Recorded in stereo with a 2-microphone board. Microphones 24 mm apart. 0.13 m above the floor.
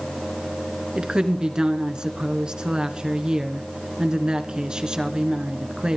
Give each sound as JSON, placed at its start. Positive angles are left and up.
{"t": 0.9, "sound": "a woman speaking", "side_deg": -35, "distance_m": 1.8}